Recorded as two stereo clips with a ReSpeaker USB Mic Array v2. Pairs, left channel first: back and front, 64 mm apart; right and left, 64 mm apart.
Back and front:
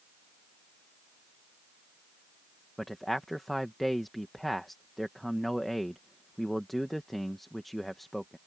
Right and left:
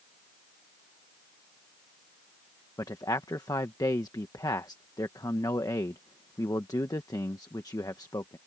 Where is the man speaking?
90° right.